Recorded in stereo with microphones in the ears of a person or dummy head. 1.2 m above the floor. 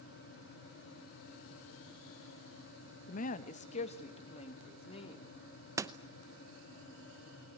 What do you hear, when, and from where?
3.1 s a woman speaking: 50° left (ahead or behind), 1.0 m; by 5.3 s 30° left (ahead or behind), 3 m
5.8 s a door slam: 15° right (ahead or behind), 0.7 m